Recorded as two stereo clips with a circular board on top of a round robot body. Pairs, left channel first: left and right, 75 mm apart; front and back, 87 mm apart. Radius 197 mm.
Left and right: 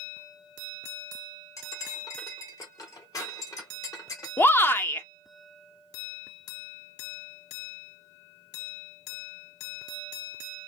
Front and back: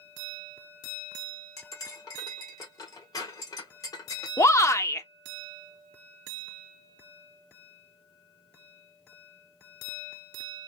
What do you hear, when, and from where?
1.6 s cutlery clinking: 45° left, 1.6 m
4.4 s a shout: 40° left, 1.0 m